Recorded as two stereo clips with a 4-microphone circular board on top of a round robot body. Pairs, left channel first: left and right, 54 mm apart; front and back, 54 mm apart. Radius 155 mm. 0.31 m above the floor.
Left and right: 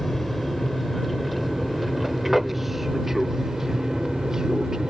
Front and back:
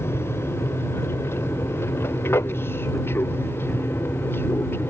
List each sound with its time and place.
0.0 s an aircraft: 5° left; by 4.9 s 15° right